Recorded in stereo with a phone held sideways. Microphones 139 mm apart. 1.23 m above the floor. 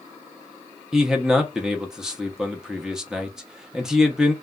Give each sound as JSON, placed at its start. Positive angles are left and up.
{"t": 0.9, "sound": "a man speaking", "side_deg": -5, "distance_m": 0.6}